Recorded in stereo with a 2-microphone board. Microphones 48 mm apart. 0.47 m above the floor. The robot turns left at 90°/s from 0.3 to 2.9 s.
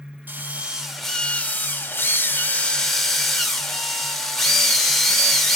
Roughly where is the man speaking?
I don't hear a man speaking.